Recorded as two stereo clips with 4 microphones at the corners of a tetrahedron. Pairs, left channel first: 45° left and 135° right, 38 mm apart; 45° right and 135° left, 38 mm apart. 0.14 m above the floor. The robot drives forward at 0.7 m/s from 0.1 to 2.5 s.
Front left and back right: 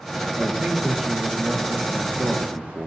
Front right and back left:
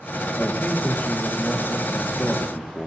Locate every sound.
0.4 s a man speaking: 70° right, 3 m; by 2.9 s 105° right, 3 m